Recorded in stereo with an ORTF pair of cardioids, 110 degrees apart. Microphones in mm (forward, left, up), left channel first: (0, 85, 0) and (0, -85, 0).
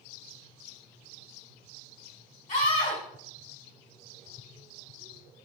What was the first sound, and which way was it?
A scream, 40° left.